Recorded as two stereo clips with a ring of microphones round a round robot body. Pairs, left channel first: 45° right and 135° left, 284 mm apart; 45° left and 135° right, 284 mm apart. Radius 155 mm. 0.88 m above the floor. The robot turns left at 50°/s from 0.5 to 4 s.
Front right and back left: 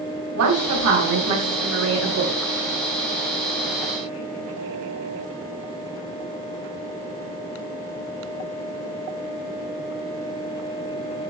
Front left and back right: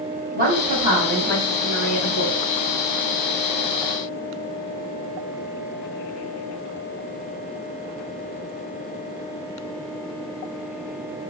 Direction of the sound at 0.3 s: 165° left.